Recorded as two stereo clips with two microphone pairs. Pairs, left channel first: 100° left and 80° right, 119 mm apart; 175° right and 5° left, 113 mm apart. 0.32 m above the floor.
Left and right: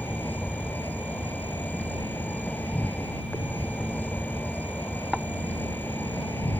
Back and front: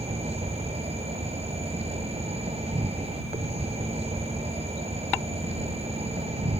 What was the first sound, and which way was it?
An insect, 25° left.